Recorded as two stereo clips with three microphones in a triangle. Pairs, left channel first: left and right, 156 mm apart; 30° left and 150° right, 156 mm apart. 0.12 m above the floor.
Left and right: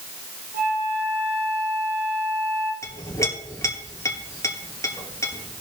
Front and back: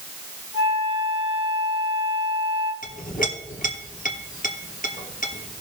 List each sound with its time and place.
0.5 s a flute: 100° right, 2.5 m
2.8 s a clink: 20° left, 1.9 m